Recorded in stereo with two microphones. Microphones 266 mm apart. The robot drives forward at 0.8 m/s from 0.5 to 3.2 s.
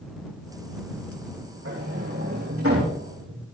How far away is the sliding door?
About 8.5 m.